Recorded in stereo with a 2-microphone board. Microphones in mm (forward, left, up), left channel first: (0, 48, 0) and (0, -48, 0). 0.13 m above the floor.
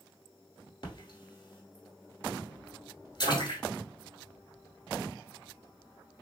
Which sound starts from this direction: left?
A splash, at 0.8 s.